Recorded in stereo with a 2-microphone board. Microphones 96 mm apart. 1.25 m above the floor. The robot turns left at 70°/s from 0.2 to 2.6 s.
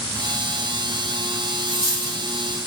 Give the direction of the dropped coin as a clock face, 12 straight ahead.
3 o'clock.